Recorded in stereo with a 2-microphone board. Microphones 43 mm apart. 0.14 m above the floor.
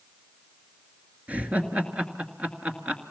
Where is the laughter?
30° right (ahead or behind), 2.5 m.